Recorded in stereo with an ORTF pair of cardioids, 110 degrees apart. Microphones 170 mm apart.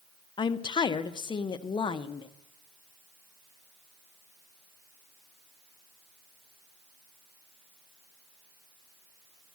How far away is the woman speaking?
About 0.6 m.